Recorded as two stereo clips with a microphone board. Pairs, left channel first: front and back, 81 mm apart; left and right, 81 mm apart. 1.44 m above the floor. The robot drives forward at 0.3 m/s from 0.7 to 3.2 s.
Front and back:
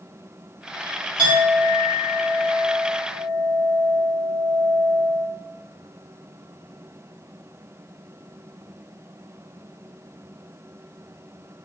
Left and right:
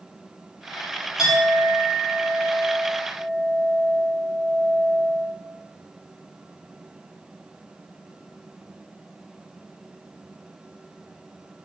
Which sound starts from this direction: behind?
A clink, at 1.2 s.